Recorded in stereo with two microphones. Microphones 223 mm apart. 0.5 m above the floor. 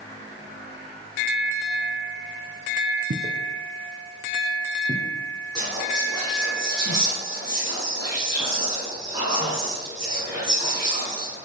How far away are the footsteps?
About 1.1 m.